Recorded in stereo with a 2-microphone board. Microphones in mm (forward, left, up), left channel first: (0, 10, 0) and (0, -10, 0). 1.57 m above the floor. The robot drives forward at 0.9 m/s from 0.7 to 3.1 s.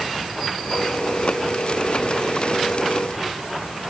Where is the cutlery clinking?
I don't hear cutlery clinking.